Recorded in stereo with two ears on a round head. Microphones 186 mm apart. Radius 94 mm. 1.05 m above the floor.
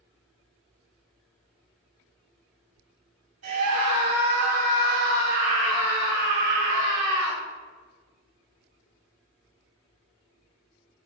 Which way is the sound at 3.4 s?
75° right (ahead or behind).